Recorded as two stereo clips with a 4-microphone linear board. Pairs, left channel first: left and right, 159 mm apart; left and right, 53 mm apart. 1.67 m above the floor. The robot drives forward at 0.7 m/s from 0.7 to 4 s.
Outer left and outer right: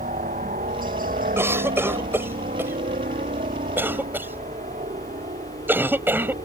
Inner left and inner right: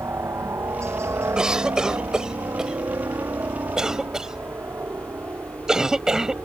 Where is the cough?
15° right (ahead or behind); by 6.3 s 10° right (ahead or behind).